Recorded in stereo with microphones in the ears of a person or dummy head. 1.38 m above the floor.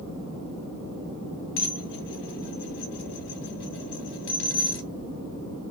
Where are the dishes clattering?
60° left (ahead or behind), 0.6 m.